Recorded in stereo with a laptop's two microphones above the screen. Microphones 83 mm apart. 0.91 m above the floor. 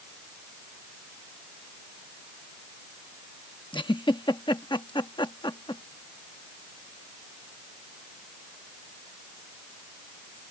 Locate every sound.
3.7 s a giggle: 80° left